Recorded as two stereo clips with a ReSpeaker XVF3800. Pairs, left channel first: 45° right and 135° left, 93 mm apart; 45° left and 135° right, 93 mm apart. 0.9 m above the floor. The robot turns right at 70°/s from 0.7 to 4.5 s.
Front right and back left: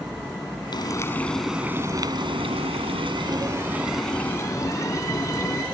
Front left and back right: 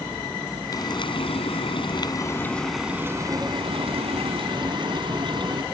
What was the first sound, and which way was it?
Frying, 5° right.